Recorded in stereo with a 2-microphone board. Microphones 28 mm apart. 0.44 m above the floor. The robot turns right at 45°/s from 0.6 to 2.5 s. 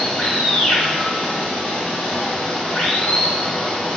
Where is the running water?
40° left, 1.3 m; by 4.0 s 125° left, 1.3 m.